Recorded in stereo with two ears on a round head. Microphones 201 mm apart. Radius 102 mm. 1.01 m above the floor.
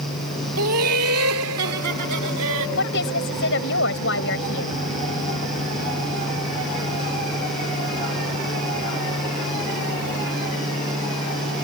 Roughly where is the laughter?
Right.